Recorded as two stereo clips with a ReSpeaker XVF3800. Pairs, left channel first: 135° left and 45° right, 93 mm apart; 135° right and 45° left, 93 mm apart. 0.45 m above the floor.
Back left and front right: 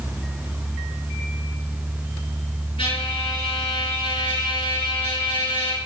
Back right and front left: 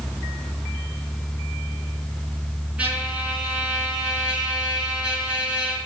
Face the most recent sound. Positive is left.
turn(degrees=120)